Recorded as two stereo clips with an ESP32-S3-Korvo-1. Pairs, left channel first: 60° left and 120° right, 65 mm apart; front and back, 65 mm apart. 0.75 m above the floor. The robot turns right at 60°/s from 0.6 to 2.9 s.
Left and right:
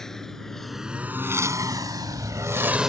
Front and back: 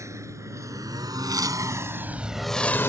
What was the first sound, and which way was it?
A lawn mower, 140° left.